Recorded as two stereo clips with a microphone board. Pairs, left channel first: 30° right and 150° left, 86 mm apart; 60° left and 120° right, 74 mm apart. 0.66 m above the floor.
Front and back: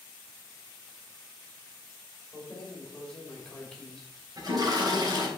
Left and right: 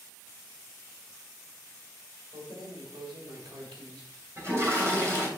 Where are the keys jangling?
115° right, 2 m.